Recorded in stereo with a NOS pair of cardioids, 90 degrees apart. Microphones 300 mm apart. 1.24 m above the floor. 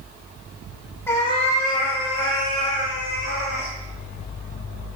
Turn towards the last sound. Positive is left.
turn(degrees=70)